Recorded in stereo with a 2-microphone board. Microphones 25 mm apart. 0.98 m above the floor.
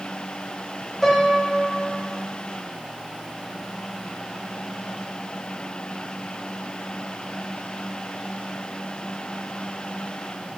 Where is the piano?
10° left (ahead or behind), 0.9 m.